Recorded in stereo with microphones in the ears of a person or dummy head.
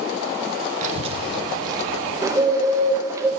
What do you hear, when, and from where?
0.8 s a child speaking: 45° right (ahead or behind), 0.9 m; by 2.1 s 20° right (ahead or behind), 2.5 m
2.2 s a bird: 20° right (ahead or behind), 1.2 m